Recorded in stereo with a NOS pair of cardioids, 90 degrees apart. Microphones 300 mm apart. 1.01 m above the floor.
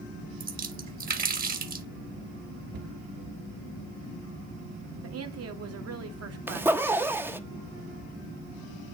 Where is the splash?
30° right, 1.5 m.